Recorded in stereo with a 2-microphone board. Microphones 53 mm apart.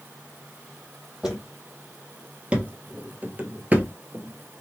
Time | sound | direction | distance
1.2 | footsteps | 15° right (ahead or behind) | 1.5 m